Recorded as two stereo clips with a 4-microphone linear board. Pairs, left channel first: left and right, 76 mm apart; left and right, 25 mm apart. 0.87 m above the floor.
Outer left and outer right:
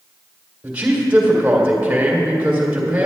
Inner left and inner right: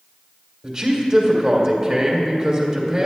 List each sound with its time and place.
0.6 s a man speaking: 20° right (ahead or behind), 3 m